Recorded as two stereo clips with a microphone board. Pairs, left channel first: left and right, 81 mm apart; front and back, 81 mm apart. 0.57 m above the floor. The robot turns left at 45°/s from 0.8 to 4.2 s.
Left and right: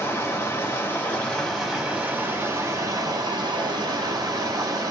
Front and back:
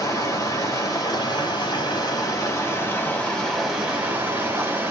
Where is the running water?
30° left, 1.4 m; by 4.9 s 125° right, 1.4 m.